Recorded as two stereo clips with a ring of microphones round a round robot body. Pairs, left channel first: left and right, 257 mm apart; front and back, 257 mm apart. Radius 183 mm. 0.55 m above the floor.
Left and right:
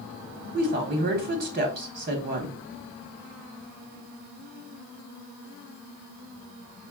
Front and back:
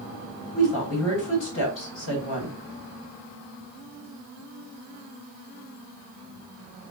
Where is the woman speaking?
40° right, 1.1 m.